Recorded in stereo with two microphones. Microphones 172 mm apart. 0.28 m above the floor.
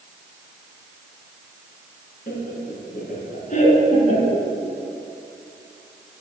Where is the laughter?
60° left (ahead or behind), 3.5 m; by 4.5 s 35° left (ahead or behind), 3.5 m.